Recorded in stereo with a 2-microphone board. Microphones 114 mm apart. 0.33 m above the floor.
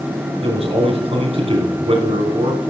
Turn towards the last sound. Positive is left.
turn(degrees=-60)  # may be behind; listen again after turning